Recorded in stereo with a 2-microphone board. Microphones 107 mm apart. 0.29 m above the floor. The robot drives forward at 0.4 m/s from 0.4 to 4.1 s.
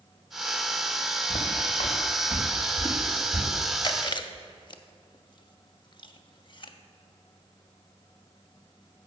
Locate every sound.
1.3 s footsteps: 80° left, 1.5 m; by 3.5 s 25° left (ahead or behind), 3 m
3.8 s chewing: 45° left (ahead or behind), 0.5 m